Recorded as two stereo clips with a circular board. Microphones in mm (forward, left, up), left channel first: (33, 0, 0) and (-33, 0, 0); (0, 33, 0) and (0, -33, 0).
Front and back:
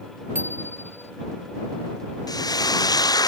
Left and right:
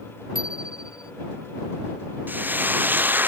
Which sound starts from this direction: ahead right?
Frying, at 2.3 s.